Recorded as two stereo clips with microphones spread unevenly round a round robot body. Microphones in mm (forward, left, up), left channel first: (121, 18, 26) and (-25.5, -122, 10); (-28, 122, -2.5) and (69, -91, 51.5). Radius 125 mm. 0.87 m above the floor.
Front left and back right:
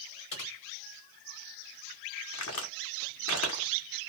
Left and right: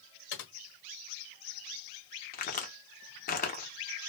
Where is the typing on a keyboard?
80° left, 1.2 m.